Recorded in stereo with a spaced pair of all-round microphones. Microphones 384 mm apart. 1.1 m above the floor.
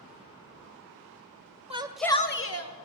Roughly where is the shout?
Centre.